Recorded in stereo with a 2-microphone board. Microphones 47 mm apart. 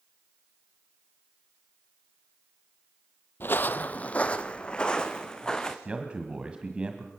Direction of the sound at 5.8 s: 25° right (ahead or behind).